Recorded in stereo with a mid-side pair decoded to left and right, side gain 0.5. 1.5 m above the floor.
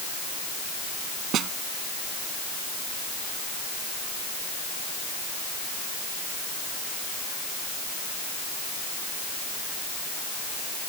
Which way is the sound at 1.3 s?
65° right.